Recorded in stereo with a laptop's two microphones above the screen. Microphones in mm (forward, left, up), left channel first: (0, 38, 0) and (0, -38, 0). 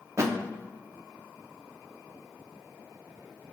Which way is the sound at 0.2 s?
40° right (ahead or behind).